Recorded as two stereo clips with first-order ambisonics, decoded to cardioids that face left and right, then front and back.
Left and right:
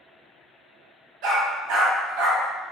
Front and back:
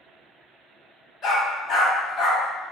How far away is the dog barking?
About 1.1 m.